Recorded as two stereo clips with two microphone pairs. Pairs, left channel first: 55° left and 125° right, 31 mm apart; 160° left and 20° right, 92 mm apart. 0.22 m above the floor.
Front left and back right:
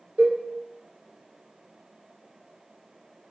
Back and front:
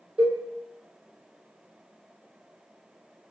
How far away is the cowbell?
About 1.5 m.